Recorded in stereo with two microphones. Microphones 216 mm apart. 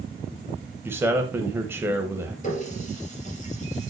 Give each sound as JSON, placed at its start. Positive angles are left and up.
{"t": 0.8, "sound": "a man speaking", "side_deg": -10, "distance_m": 1.1}
{"t": 2.4, "sound": "a running tap", "side_deg": 35, "distance_m": 3.5}